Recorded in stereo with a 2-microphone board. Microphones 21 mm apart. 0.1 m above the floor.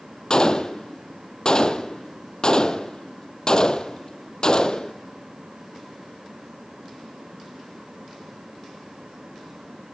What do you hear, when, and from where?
0.3 s a gunshot: 40° left (ahead or behind), 0.6 m